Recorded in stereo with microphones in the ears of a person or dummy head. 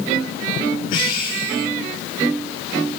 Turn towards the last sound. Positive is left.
turn(degrees=55)  # may be behind; listen again after turning